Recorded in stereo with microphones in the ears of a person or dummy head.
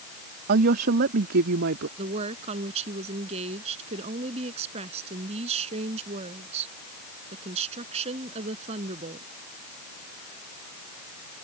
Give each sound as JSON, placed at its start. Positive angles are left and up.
{"t": 0.5, "sound": "a woman speaking", "side_deg": -50}
{"t": 2.0, "sound": "a woman speaking", "side_deg": -45}